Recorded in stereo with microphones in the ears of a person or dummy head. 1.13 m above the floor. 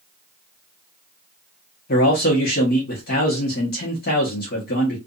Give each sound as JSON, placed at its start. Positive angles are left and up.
{"t": 1.9, "sound": "a man speaking", "side_deg": 50, "distance_m": 1.3}